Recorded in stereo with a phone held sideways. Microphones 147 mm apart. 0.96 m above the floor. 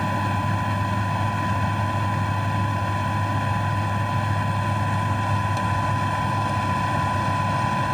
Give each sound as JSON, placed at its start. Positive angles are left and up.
{"t": 0.0, "sound": "a machine running", "side_deg": 0}